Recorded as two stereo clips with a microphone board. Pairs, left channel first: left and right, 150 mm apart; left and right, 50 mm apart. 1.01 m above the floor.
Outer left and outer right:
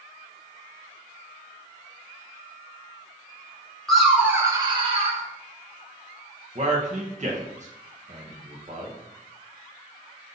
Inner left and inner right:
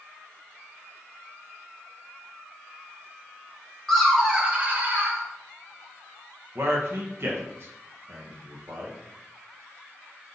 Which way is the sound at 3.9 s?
5° left (ahead or behind).